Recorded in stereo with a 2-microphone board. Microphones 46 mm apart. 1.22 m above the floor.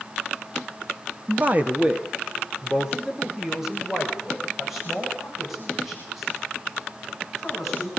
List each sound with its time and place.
1.3 s a man speaking: 45° right (ahead or behind), 1.2 m; by 7.9 s 5° left (ahead or behind), 8.5 m